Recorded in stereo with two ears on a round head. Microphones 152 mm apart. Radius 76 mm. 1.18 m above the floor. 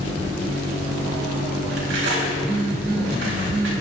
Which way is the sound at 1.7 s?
80° right.